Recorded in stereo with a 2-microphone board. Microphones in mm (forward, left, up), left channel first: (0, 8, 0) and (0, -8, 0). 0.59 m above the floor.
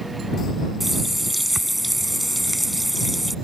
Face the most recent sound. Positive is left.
turn(degrees=0)  # may be behind; listen again after turning